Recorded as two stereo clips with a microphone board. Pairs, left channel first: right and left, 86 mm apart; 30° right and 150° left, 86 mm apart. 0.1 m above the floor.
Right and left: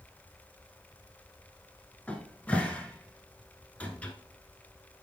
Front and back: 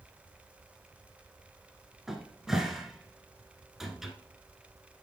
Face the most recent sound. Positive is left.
turn(degrees=-130)